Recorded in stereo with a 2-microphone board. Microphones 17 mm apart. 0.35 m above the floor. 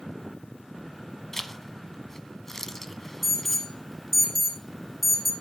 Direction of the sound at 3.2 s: 15° left (ahead or behind).